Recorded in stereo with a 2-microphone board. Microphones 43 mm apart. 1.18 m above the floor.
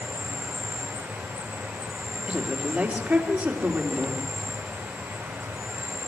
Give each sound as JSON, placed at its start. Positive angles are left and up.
{"t": 0.0, "sound": "an insect", "side_deg": -75, "distance_m": 6.0}
{"t": 2.3, "sound": "a woman speaking", "side_deg": -35, "distance_m": 3.0}